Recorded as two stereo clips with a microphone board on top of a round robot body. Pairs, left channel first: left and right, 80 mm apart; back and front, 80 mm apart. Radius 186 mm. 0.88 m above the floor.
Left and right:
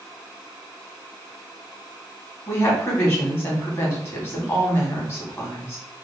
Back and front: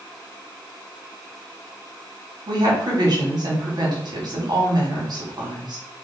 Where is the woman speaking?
35° left, 1.9 m.